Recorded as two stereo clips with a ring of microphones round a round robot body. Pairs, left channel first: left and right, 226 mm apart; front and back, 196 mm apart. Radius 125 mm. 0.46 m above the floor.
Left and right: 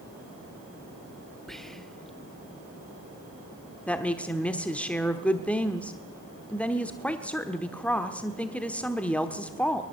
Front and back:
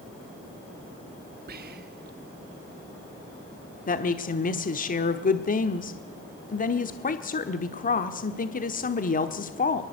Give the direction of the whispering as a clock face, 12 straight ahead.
6 o'clock.